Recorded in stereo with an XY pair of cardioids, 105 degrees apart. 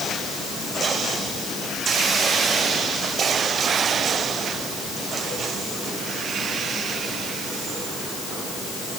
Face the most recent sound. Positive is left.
No sound to turn to.